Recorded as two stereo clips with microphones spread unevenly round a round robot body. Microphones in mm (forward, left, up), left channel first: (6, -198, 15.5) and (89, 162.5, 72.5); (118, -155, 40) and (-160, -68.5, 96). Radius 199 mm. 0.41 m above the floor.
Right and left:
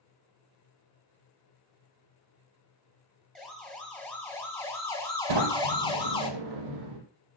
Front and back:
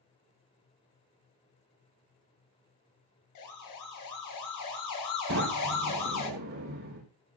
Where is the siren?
15° right, 8.5 m; by 6.3 s 25° right, 9 m.